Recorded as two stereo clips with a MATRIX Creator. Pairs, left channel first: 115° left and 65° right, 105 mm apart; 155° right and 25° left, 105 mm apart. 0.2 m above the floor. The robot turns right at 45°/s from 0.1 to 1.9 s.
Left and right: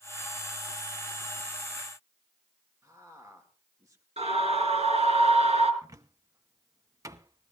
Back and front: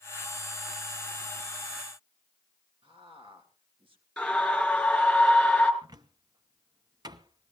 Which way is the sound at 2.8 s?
10° right.